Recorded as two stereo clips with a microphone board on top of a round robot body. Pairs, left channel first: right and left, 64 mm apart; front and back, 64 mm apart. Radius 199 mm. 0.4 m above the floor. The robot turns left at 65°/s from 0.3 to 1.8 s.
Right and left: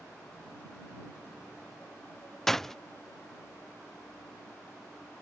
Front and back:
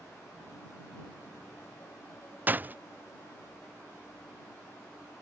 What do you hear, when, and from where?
2.5 s a door slam: 170° right